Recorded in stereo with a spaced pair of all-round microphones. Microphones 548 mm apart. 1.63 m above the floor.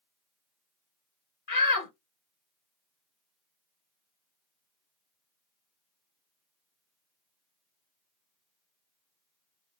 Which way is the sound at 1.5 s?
75° left (ahead or behind).